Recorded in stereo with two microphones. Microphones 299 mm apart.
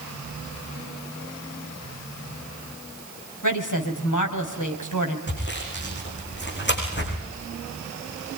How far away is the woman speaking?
About 3 m.